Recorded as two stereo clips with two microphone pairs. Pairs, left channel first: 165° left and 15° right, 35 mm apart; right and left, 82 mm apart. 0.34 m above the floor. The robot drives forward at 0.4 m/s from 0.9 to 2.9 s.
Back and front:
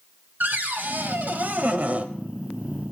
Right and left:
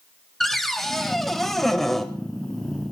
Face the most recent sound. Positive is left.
turn(degrees=-5)